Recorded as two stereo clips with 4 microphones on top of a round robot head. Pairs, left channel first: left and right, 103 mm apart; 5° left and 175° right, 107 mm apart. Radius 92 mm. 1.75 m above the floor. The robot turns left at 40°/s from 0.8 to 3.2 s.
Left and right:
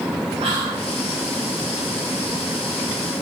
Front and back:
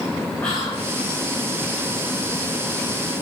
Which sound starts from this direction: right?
Whispering, at 0.4 s.